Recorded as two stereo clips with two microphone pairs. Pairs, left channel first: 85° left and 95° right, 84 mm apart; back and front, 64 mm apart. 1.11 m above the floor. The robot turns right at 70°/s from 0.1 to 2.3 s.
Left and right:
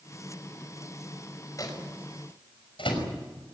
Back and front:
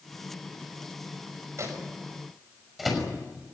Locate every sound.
1.6 s a microwave: 40° left, 5.5 m; by 3.1 s 90° left, 5.5 m